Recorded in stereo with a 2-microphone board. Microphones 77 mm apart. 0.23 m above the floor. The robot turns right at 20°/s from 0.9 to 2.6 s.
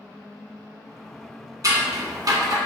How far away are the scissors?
About 1.0 m.